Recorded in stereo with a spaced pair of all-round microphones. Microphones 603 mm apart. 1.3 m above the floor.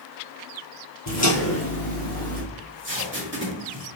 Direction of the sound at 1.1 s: 25° left (ahead or behind).